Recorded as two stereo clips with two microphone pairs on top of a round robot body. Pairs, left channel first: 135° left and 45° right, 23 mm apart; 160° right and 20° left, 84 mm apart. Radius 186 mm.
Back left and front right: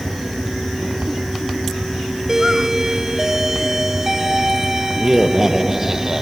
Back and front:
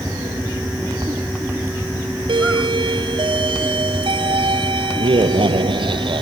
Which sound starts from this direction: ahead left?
A doorbell, at 2.3 s.